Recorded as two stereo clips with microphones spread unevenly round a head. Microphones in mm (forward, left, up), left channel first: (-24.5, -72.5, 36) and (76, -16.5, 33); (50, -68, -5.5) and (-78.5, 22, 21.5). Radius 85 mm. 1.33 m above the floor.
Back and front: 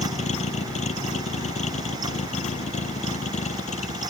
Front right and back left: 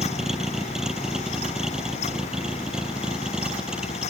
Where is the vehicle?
130° right.